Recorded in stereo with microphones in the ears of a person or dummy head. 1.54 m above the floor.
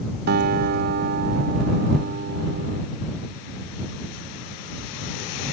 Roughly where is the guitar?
Right.